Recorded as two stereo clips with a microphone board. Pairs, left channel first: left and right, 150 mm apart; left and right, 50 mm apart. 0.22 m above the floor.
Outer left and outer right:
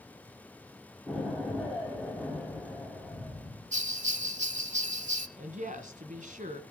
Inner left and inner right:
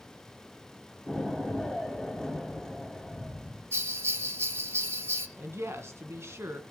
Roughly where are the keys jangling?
I don't hear keys jangling.